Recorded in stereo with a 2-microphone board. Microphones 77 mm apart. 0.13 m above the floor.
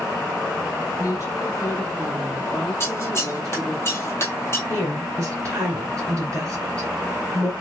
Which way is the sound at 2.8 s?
35° left (ahead or behind).